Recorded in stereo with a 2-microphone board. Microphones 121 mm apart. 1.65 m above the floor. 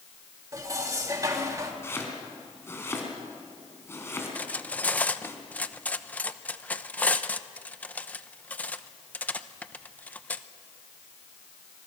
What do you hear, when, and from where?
0.5 s dishes clattering: 25° right (ahead or behind), 2.5 m
1.8 s chopping: 20° left (ahead or behind), 4 m
4.3 s cutlery clinking: 10° left (ahead or behind), 0.8 m